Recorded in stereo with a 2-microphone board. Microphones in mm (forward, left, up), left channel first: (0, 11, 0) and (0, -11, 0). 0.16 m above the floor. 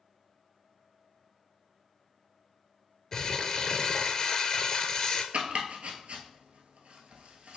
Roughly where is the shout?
I don't hear a shout.